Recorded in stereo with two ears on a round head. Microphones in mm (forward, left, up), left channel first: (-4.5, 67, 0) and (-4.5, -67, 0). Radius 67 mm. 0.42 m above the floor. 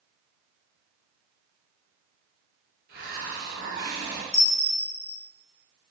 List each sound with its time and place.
2.9 s a hiss: 70° right (ahead or behind), 1.7 m
4.3 s a bell: centre (ahead or behind), 1.0 m